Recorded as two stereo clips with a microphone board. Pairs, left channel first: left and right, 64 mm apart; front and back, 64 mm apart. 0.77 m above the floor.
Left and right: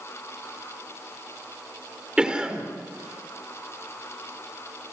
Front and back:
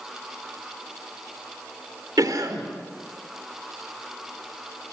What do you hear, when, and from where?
2.2 s a cough: 165° right, 3 m